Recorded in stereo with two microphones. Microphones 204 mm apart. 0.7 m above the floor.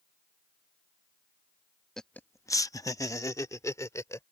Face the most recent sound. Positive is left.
turn(degrees=15)  # may be behind; listen again after turning